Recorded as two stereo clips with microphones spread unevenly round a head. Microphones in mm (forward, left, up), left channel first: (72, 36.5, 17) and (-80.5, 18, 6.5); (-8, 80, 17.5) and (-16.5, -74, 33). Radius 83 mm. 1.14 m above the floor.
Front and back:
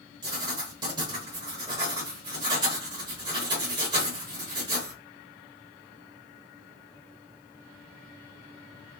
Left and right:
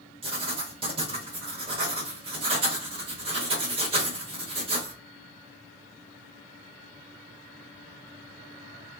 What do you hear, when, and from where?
0.2 s writing: 115° right, 1.0 m